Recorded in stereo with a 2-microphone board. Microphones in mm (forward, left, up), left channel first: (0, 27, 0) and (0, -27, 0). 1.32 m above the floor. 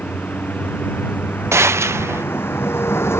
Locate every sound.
0.0 s a vehicle: 30° left (ahead or behind); by 3.2 s 50° left (ahead or behind)
1.5 s a gunshot: 55° right (ahead or behind)